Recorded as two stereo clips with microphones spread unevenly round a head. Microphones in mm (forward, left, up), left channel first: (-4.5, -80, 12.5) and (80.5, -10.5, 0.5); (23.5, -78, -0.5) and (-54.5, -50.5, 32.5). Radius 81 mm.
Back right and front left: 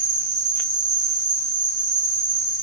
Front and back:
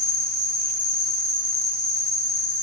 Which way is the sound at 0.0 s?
50° left.